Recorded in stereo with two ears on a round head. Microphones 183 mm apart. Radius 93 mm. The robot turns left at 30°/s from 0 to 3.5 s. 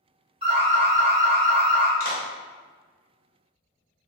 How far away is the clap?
About 0.9 m.